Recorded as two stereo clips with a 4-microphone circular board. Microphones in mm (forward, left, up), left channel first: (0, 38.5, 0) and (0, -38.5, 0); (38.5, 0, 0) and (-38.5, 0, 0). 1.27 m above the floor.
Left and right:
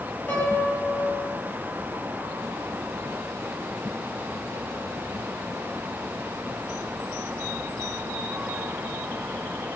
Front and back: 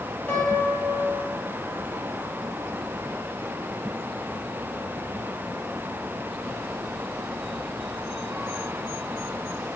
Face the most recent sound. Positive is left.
turn(degrees=50)